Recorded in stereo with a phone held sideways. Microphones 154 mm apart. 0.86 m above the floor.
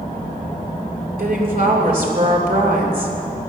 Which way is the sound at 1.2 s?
70° right (ahead or behind).